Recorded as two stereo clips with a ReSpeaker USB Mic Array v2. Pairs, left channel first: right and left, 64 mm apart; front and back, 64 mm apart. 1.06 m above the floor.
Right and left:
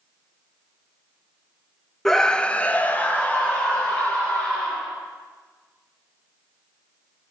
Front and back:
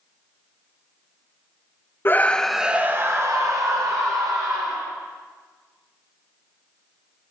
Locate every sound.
2.0 s a scream: 10° right, 0.6 m; by 4.9 s 160° right, 2.0 m